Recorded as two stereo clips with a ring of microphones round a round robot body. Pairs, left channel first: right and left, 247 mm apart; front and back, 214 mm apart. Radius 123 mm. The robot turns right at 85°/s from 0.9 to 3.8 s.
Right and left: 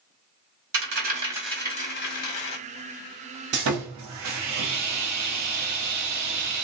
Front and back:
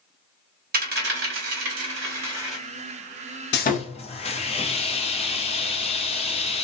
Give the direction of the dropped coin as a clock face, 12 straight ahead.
8 o'clock.